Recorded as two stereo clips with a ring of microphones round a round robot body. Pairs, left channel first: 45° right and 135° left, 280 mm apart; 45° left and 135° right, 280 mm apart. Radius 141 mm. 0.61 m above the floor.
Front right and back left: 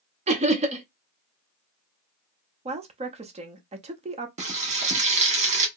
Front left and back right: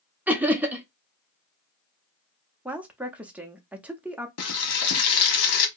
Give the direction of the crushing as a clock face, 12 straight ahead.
I don't hear crushing.